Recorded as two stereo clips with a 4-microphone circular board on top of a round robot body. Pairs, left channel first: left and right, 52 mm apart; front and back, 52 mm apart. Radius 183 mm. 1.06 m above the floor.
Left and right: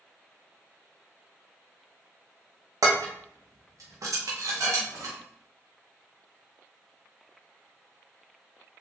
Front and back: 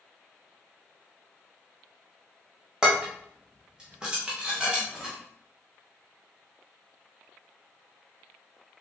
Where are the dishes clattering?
105° right, 0.6 m.